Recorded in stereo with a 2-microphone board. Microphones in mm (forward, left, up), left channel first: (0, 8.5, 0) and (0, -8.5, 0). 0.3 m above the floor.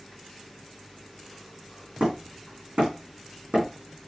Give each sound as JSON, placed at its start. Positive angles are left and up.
{"t": 2.0, "sound": "hammering", "side_deg": -85, "distance_m": 4.0}